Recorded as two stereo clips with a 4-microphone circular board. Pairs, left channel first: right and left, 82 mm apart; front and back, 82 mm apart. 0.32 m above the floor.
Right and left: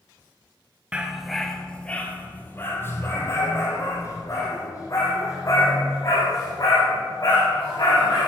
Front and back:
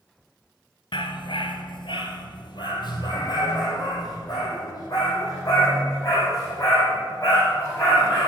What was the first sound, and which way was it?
A dog barking, 15° left.